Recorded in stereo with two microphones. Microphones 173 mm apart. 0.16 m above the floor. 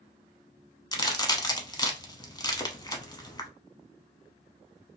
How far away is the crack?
About 0.7 m.